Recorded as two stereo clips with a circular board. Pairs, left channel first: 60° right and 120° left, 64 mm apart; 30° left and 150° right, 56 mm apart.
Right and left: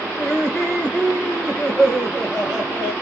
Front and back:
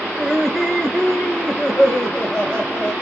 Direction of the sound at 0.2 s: 65° right.